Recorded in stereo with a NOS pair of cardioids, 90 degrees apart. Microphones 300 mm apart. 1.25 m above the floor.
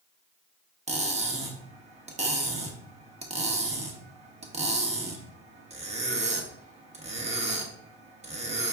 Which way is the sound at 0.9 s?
25° right.